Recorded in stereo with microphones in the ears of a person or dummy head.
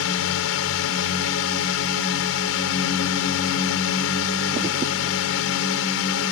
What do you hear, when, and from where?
0.0 s a drone: 80° left